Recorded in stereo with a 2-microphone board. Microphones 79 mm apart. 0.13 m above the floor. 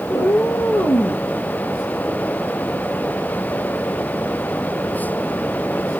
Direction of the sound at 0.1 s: 50° left (ahead or behind).